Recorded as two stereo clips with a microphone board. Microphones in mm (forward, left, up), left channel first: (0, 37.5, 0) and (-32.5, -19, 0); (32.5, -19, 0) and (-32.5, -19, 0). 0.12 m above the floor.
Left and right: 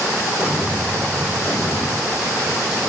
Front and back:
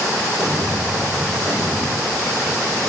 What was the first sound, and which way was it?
An explosion, 120° left.